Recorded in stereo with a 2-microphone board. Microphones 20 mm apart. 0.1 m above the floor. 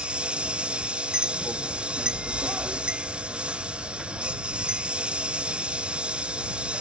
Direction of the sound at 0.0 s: 85° right.